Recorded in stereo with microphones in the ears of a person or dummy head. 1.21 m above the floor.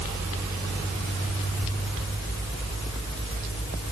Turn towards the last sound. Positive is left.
No sound to turn to.